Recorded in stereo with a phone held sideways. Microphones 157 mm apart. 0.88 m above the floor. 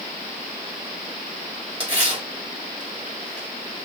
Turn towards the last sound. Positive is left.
turn(degrees=-35)  # may be behind; listen again after turning